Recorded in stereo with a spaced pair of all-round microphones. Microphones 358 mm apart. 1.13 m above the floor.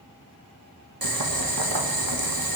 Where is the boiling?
70° right (ahead or behind), 1.4 m.